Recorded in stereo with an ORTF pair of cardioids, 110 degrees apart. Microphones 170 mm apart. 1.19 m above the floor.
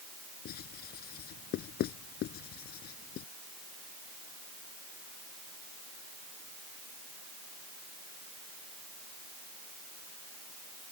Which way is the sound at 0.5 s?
65° left.